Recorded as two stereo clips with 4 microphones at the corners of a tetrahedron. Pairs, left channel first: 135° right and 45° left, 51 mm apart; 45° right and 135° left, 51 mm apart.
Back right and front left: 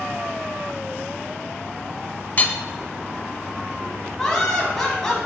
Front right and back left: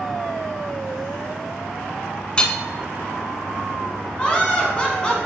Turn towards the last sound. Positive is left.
turn(degrees=-65)